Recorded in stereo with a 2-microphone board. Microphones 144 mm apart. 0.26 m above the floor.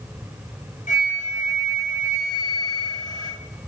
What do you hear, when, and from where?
0.9 s a flute: 60° left (ahead or behind), 2.5 m